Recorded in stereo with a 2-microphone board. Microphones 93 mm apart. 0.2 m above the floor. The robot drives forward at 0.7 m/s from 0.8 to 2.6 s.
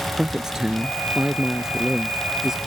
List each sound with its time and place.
0.2 s a man speaking: 5° right (ahead or behind)